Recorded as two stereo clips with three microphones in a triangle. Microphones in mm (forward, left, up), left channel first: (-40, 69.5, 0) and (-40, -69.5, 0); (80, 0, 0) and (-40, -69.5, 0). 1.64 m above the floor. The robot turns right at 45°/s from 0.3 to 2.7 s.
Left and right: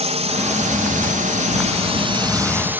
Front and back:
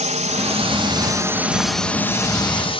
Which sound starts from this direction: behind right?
A drone, at 0.0 s.